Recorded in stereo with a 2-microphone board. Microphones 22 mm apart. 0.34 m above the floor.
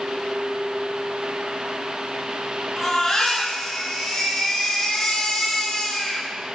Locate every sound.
2.8 s a baby crying: 20° left (ahead or behind), 5 m